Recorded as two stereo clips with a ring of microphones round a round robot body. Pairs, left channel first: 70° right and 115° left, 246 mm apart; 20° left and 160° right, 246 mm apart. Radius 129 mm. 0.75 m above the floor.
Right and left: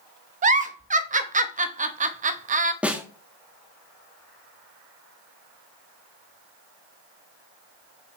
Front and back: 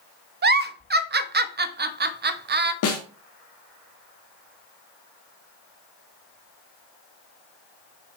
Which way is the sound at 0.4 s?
165° left.